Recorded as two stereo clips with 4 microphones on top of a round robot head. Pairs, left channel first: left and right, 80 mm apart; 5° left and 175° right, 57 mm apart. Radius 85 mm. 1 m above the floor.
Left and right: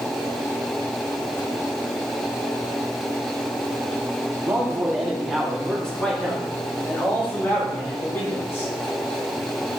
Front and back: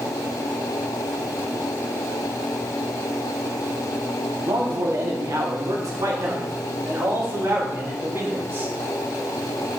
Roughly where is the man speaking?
Behind.